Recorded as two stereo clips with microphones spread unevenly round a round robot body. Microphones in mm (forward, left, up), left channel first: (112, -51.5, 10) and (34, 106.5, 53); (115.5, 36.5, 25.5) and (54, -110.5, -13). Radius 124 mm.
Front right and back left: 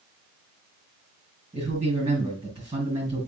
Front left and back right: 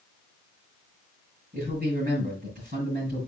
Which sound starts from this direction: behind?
A man speaking, at 1.5 s.